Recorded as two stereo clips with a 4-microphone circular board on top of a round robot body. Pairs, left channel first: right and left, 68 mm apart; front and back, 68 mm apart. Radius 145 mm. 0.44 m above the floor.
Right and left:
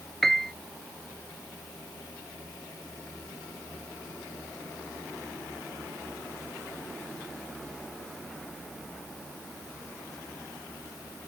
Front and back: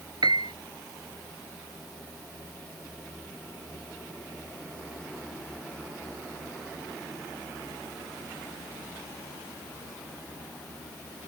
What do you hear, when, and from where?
0.2 s a piano: 175° right